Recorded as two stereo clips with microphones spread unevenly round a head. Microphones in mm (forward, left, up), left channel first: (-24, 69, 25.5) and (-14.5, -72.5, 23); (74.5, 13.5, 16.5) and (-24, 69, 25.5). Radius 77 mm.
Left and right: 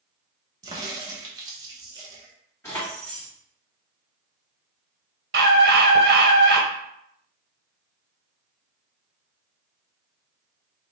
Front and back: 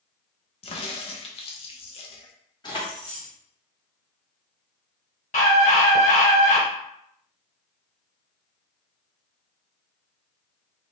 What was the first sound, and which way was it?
A crack, 30° right.